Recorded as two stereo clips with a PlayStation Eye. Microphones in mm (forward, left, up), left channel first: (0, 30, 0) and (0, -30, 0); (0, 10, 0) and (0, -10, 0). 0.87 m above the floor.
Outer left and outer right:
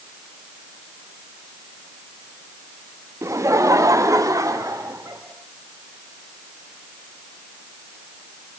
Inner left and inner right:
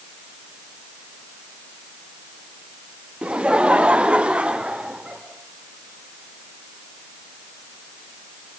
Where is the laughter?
55° right (ahead or behind), 0.8 m; by 5.2 s 75° right (ahead or behind), 2.5 m.